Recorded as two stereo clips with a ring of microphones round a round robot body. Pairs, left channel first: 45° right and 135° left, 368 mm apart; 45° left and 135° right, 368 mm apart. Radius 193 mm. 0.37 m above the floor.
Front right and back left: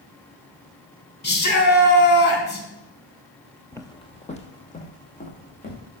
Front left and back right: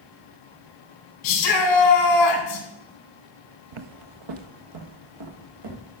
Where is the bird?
I don't hear a bird.